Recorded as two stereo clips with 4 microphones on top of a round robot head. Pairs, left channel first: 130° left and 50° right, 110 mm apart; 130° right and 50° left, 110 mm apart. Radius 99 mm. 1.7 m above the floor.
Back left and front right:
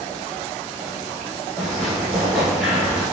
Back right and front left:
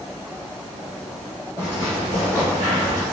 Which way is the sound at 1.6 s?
165° right.